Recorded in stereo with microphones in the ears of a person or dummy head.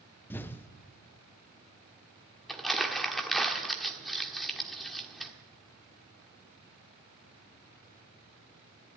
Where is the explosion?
15° left (ahead or behind), 0.7 m.